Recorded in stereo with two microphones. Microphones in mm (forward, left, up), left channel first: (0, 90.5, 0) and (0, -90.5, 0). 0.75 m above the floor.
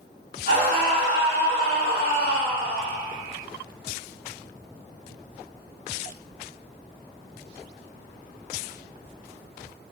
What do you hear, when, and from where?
0.5 s a scream: 55° left (ahead or behind), 1.3 m